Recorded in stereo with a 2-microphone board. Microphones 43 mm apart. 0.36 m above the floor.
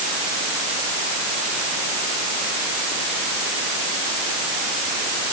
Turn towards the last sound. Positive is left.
No sound to turn to.